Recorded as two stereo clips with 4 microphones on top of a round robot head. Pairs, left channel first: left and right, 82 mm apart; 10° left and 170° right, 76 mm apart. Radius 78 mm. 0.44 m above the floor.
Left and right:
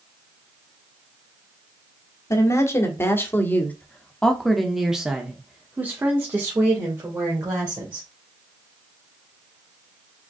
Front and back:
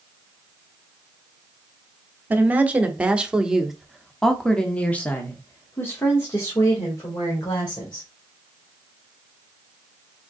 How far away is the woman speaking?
About 1.5 m.